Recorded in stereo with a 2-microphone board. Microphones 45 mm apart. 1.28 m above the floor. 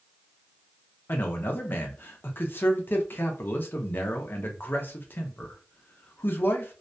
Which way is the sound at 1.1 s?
45° left (ahead or behind).